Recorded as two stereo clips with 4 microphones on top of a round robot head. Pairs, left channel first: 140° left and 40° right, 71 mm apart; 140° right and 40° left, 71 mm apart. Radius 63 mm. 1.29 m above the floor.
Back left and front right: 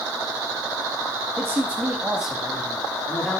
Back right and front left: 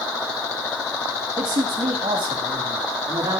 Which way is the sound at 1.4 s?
15° left.